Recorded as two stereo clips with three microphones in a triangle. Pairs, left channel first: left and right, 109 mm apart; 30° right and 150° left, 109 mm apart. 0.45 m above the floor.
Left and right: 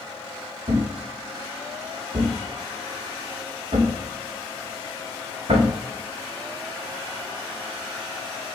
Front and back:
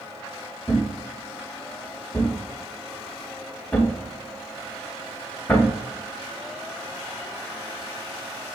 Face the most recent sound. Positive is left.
turn(degrees=-105)